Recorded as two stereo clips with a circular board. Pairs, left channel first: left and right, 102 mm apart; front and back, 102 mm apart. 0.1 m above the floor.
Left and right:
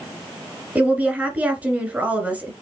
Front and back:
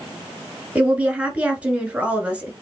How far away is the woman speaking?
About 1.7 m.